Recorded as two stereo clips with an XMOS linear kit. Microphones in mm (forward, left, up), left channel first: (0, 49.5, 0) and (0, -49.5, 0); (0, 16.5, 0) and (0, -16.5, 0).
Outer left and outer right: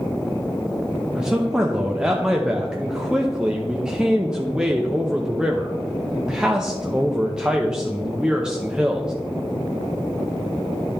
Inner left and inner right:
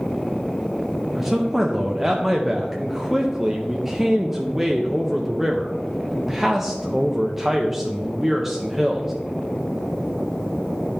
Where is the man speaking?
10° right (ahead or behind), 0.7 m.